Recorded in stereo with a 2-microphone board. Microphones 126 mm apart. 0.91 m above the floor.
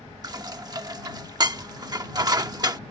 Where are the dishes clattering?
30° right (ahead or behind).